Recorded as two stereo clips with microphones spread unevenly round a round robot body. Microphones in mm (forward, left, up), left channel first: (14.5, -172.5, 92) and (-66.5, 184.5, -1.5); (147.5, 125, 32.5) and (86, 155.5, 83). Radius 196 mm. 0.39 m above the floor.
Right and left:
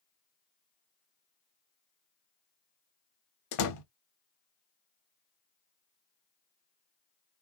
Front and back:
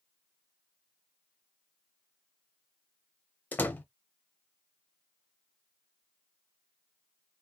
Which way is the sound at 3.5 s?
30° right.